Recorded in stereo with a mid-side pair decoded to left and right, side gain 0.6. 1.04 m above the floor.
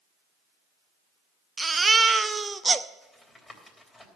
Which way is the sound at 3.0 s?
10° left.